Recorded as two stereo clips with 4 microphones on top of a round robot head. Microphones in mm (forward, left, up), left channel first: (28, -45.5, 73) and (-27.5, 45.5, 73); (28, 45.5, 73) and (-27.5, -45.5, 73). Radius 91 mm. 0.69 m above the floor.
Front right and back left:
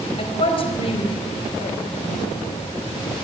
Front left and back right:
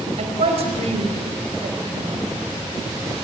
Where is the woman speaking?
95° right, 4.5 m.